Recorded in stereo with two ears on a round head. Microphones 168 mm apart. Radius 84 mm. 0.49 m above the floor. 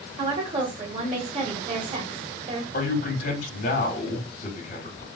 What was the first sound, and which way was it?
A woman speaking, 30° right (ahead or behind).